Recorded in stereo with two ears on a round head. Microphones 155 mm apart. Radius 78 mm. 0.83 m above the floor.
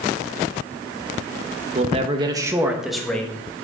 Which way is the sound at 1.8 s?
40° right (ahead or behind).